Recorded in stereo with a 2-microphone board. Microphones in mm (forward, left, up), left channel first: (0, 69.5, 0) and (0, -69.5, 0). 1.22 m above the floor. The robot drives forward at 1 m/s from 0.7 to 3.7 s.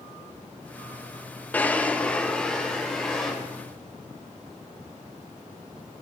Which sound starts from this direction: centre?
A drawer, at 1.5 s.